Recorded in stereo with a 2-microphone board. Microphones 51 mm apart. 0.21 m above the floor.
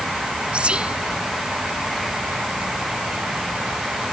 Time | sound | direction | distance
0.5 | whispering | 20° right (ahead or behind) | ?